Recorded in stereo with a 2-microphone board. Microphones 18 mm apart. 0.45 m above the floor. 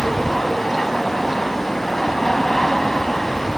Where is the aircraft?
15° left (ahead or behind).